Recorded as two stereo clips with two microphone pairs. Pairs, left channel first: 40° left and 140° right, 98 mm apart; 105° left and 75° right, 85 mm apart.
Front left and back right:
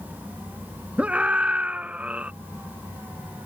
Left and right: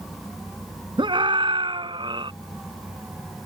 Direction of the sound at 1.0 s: 65° right.